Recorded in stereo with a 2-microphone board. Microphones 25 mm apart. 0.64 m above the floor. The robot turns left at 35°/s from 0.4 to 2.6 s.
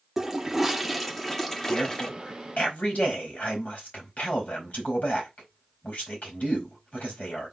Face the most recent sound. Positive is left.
turn(degrees=75)